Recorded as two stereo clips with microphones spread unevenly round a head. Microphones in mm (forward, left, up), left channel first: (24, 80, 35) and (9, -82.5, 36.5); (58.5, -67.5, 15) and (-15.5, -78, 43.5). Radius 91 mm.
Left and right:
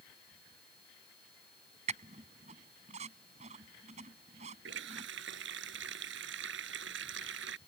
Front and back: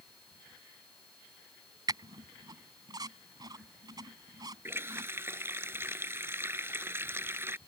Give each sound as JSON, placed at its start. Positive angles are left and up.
{"t": 1.9, "sound": "a squeak", "azimuth_deg": -150}
{"t": 4.7, "sound": "a running tap", "azimuth_deg": -115}